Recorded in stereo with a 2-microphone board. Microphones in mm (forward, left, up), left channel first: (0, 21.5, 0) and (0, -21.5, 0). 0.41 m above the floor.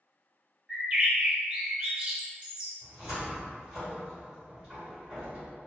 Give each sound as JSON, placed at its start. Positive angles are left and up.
{"t": 0.7, "sound": "a bird", "side_deg": -25, "distance_m": 0.7}
{"t": 2.8, "sound": "a cupboard door", "side_deg": -15, "distance_m": 1.3}